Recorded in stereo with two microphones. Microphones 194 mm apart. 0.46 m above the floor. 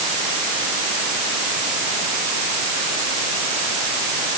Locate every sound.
Only background noise.